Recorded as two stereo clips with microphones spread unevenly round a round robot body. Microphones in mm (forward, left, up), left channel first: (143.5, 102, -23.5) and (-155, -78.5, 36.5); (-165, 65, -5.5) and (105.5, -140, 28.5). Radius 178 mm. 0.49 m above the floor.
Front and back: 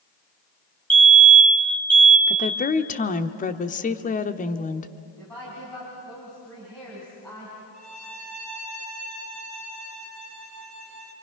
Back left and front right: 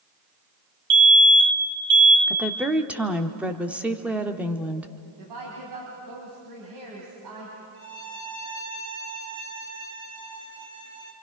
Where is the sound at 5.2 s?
50° right, 4.5 m.